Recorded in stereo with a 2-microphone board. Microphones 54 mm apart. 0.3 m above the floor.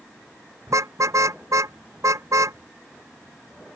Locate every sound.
0.7 s a car horn: 70° right (ahead or behind)